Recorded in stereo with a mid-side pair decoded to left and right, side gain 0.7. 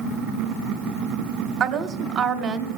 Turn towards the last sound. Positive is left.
turn(degrees=-45)